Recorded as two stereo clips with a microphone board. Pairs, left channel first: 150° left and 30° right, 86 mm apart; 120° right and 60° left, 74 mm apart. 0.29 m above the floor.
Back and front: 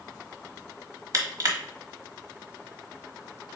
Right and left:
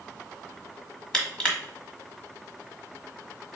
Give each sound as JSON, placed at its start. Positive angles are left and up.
{"t": 1.1, "sound": "crushing", "azimuth_deg": -50, "distance_m": 1.1}